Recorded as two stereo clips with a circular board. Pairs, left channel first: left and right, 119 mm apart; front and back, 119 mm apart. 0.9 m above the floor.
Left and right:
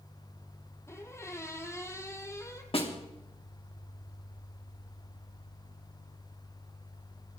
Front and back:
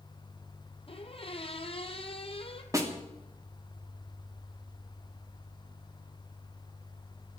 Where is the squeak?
25° left, 1.6 m.